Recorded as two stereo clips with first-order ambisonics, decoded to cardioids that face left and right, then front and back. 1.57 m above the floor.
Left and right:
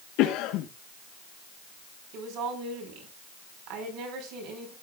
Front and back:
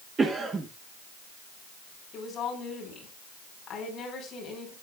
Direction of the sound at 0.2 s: 110° left.